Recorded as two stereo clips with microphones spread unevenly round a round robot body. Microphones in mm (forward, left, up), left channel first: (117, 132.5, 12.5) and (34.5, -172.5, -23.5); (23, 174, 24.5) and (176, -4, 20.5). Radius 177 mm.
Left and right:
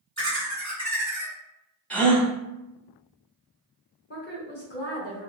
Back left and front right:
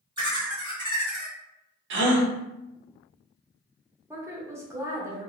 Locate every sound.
0.2 s laughter: 25° right, 1.3 m
1.9 s a gasp: 15° right, 0.6 m
4.1 s a woman speaking: 25° left, 0.9 m